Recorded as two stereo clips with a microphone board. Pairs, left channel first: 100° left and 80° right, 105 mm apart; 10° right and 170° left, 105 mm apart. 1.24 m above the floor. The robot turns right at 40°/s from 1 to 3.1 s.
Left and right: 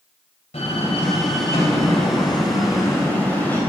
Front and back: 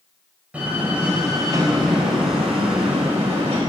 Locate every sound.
0.5 s a door slam: 90° left, 4 m; by 3.6 s 175° left, 4 m